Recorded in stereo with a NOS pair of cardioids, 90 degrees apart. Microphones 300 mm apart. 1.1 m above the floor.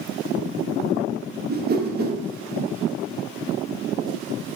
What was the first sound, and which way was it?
A whoosh, 35° right.